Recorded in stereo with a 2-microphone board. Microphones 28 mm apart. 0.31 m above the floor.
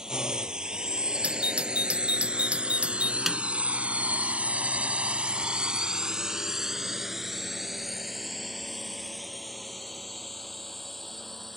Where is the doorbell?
50° right (ahead or behind).